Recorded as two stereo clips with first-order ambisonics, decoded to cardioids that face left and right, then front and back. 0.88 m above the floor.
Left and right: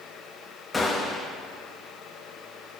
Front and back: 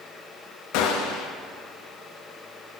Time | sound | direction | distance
0.7 | a gunshot | 10° left | 0.6 m